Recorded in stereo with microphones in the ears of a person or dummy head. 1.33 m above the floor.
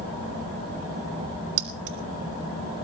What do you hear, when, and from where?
1.6 s keys jangling: 75° right (ahead or behind), 1.9 m